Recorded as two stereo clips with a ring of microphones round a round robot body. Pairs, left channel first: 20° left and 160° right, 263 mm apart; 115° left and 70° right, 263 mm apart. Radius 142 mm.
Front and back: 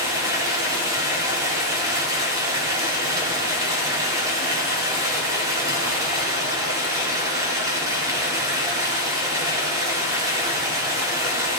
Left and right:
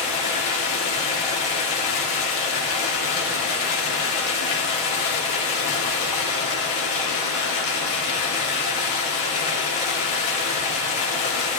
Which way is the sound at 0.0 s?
125° left.